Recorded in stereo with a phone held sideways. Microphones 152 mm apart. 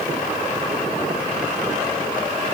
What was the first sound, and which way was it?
Only background noise.